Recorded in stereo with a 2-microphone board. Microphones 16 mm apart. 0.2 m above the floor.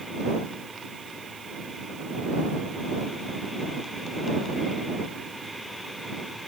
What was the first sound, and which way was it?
Only background noise.